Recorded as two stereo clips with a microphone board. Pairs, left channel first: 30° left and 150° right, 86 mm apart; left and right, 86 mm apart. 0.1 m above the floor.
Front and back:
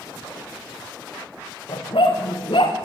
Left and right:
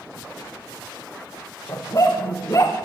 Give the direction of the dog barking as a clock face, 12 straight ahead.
11 o'clock.